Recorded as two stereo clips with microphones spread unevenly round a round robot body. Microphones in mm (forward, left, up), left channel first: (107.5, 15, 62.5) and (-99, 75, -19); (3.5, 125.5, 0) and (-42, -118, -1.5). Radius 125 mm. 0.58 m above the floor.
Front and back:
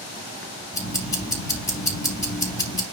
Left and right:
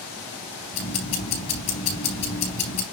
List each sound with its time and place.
0.7 s ticking: 65° left, 4 m